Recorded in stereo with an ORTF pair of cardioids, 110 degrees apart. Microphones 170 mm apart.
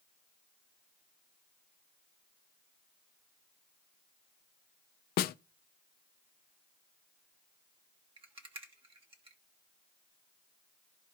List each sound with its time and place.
5.2 s a snare drum: 60° left, 0.5 m
8.2 s a rattle: 30° right, 1.4 m